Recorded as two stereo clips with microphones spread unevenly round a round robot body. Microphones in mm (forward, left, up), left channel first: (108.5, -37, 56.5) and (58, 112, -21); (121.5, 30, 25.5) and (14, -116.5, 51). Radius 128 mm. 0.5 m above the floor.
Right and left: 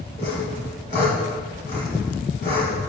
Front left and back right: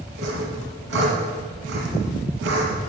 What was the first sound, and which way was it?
Sawing, 125° right.